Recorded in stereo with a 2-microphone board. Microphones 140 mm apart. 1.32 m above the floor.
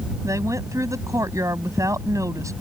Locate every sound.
0.2 s a woman speaking: 20° right (ahead or behind)